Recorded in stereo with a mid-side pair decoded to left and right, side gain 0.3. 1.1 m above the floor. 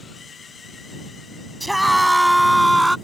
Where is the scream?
10° right; by 3.0 s 15° right.